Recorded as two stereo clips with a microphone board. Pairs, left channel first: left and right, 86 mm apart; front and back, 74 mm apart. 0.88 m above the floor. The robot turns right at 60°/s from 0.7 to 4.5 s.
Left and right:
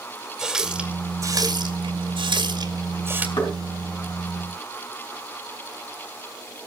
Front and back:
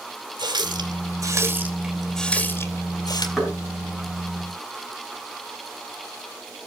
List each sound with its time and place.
0.4 s a running tap: 175° right, 2 m; by 3.3 s 20° right, 2 m
3.4 s knocking: 95° left, 5 m; by 3.5 s 105° left, 5 m